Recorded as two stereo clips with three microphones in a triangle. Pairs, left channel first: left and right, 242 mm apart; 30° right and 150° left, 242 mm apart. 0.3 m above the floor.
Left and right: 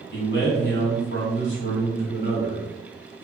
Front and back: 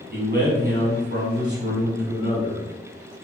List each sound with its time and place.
0.1 s a man speaking: 110° left, 1.7 m